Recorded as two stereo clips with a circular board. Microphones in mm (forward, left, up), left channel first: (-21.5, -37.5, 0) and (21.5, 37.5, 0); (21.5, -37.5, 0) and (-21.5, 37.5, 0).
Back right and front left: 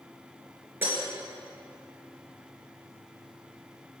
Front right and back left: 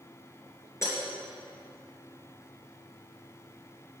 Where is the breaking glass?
5° right, 2.5 m.